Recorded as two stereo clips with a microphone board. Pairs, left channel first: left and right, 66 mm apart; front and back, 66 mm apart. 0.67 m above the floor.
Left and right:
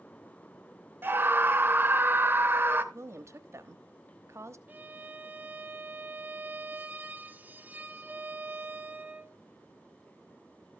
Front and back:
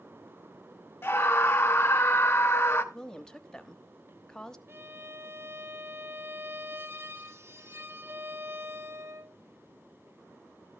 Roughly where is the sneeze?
I don't hear a sneeze.